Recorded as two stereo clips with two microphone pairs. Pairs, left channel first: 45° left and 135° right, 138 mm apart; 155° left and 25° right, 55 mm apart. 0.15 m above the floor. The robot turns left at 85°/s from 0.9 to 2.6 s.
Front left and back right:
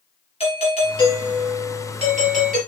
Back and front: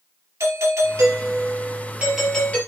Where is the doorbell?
Straight ahead, 3.5 m; by 2.6 s 145° right, 3.5 m.